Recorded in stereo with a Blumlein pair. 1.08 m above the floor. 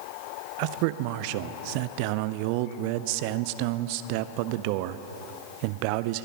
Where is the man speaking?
45° right, 0.6 m.